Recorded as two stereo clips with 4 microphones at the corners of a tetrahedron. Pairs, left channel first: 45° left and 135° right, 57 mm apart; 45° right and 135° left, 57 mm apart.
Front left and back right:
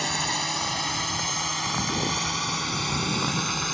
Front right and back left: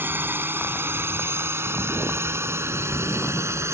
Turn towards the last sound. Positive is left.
turn(degrees=135)